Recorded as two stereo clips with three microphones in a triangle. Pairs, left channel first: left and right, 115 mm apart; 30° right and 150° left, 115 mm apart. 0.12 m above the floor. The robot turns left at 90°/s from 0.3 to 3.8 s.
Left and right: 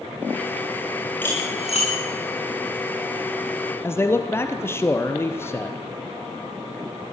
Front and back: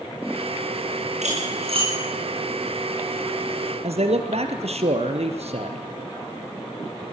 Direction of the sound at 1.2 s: 165° left.